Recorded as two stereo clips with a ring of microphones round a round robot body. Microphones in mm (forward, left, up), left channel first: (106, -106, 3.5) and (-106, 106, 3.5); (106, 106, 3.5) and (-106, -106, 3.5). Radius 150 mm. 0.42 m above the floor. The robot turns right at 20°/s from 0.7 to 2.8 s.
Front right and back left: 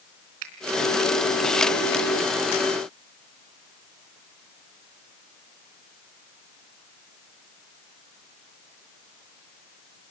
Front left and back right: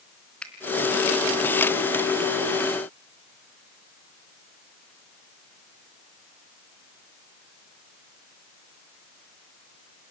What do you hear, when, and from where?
0.4 s a finger snap: 130° left, 3 m